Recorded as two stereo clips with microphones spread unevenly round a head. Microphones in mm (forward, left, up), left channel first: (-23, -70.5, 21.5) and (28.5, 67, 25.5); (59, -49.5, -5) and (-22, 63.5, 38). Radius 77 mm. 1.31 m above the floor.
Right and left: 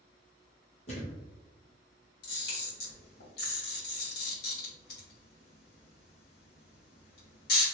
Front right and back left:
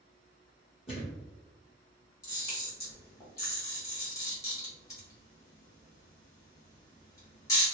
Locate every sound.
0.9 s a thud: 110° right, 1.6 m
2.2 s a camera shutter: 125° right, 1.4 m